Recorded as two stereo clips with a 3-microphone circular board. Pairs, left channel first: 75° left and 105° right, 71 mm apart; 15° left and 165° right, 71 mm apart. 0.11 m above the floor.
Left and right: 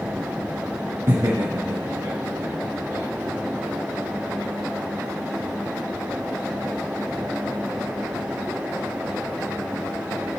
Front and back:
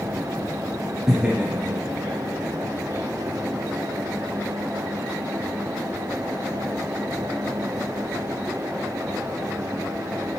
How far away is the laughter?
About 1.9 m.